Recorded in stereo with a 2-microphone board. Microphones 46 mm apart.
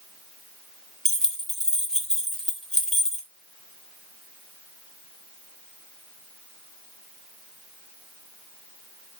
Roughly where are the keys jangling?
Centre.